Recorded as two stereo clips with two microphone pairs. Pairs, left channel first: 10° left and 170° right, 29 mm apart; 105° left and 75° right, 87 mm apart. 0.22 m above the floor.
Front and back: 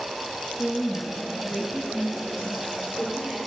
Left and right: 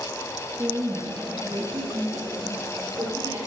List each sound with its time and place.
0.6 s a woman speaking: 30° right, 3 m; by 3.4 s 60° right, 4 m